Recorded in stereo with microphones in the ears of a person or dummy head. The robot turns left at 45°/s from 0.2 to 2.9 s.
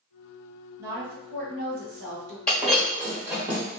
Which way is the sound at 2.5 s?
Centre (ahead or behind).